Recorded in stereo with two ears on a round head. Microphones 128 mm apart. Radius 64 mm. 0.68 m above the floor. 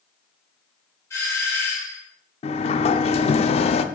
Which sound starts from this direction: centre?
A doorbell, at 1.1 s.